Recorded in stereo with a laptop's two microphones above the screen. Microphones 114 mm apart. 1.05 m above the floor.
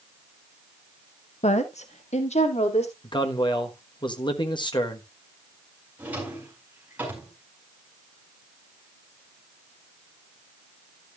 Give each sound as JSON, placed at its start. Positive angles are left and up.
{"t": 1.4, "sound": "a woman speaking", "side_deg": 75, "distance_m": 0.9}
{"t": 3.0, "sound": "a man speaking", "side_deg": 40, "distance_m": 1.2}
{"t": 6.0, "sound": "a drawer", "side_deg": -15, "distance_m": 5.0}